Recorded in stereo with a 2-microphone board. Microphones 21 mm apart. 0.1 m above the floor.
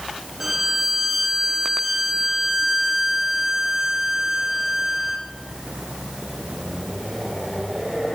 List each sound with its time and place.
0.4 s a violin: 10° right (ahead or behind), 0.6 m